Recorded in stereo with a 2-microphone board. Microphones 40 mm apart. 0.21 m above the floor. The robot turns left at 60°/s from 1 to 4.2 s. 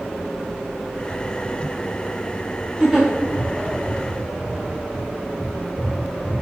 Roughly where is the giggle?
Centre.